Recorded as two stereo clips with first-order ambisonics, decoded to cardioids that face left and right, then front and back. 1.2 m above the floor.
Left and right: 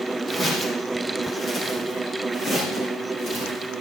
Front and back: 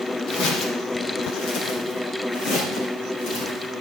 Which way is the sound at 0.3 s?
15° left.